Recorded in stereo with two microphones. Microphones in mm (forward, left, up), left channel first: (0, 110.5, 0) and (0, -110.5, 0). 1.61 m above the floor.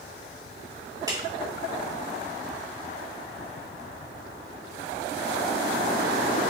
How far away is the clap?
About 3 m.